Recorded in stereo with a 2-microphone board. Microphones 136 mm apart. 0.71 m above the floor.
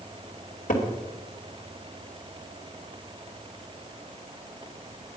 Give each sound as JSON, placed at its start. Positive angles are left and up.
{"t": 0.7, "sound": "a cupboard door", "side_deg": 75, "distance_m": 2.5}